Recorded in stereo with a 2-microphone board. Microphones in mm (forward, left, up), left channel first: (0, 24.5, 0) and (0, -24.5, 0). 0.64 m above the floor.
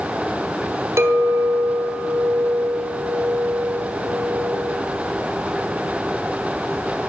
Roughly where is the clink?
Right.